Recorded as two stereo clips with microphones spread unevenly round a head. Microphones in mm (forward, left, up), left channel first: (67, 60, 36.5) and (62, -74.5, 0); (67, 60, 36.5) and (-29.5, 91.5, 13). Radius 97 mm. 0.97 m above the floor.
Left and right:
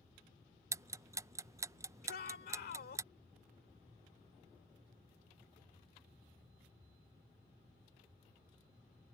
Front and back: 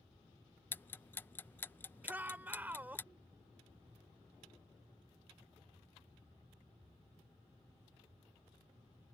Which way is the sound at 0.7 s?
95° right.